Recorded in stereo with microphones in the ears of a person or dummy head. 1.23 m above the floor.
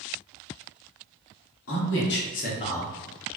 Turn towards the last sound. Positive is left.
turn(degrees=-30)  # may be behind; listen again after turning